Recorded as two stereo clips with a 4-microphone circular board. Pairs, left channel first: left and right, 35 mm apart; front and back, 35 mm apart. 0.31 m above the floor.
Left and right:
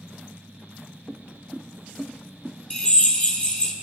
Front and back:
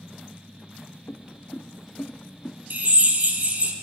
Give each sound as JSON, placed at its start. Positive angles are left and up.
{"t": 1.1, "sound": "footsteps", "azimuth_deg": -30, "distance_m": 1.0}
{"t": 2.7, "sound": "a drill", "azimuth_deg": 140, "distance_m": 1.9}